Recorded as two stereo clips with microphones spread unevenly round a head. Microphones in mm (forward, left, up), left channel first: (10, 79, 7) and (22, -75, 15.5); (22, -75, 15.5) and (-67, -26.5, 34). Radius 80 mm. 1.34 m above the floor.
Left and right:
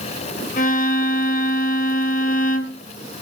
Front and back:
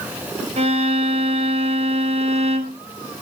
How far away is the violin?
About 1.1 m.